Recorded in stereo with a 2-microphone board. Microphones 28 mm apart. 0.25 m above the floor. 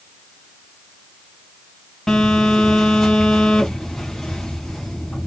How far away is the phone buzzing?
About 2.5 m.